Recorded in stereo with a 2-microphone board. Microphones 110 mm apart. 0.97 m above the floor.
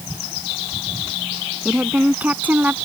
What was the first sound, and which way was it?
A woman speaking, 10° right (ahead or behind).